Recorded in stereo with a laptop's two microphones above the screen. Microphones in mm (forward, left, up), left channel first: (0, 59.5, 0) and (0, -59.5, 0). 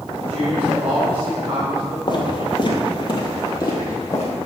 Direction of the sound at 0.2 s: 45° right (ahead or behind).